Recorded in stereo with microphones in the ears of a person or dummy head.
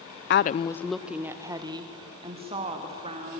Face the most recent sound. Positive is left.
turn(degrees=-35)  # may be behind; listen again after turning